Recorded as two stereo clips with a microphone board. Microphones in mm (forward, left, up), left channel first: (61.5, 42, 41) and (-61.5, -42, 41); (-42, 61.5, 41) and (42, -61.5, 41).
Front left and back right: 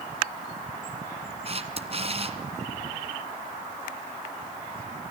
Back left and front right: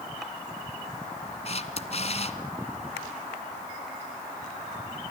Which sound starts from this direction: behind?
A camera shutter, at 1.4 s.